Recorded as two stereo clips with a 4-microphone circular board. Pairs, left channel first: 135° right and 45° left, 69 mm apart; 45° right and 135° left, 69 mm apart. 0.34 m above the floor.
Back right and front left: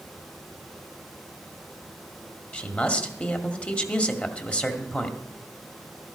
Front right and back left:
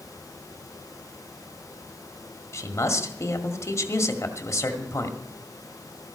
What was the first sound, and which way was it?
A man speaking, 70° right.